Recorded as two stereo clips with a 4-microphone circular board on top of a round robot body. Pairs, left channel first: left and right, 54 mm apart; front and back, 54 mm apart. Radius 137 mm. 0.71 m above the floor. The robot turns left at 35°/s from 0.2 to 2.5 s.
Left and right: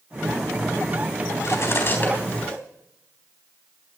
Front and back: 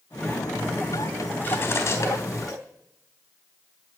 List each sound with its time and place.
1.4 s cutlery clinking: 55° left, 3.5 m; by 2.6 s 15° left, 3.5 m